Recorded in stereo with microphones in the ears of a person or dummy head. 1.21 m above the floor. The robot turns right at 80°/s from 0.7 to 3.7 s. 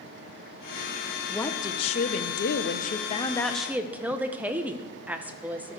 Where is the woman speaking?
Straight ahead, 0.9 m; by 5.8 s 165° right, 0.9 m.